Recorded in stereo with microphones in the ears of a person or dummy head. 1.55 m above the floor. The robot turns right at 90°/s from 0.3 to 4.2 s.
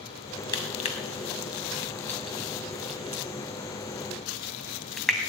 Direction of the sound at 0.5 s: 20° left (ahead or behind).